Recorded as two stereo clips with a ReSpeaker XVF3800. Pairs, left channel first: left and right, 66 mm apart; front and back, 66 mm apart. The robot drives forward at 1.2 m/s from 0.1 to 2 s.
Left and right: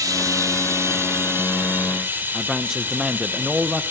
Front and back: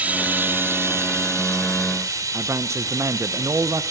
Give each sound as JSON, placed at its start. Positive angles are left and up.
{"t": 0.0, "sound": "running water", "azimuth_deg": -115, "distance_m": 2.0}
{"t": 2.3, "sound": "a man speaking", "azimuth_deg": -170, "distance_m": 0.7}